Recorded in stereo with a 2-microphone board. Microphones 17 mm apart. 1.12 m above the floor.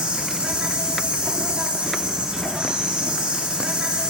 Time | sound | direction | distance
0.0 | an insect | 80° right | 1.8 m